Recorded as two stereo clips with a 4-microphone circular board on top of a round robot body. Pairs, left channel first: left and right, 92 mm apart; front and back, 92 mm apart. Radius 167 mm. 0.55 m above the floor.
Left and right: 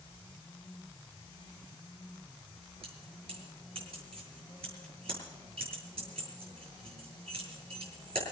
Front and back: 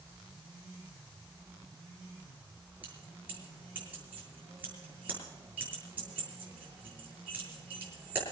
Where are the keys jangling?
105° right, 8 m.